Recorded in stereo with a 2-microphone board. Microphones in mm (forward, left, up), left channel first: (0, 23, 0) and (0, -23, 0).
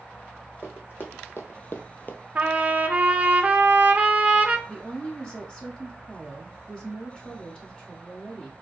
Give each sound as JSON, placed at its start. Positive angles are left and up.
{"t": 0.6, "sound": "running footsteps", "side_deg": 50, "distance_m": 1.4}
{"t": 2.4, "sound": "a trumpet", "side_deg": -30, "distance_m": 0.5}
{"t": 4.7, "sound": "a woman speaking", "side_deg": 20, "distance_m": 0.7}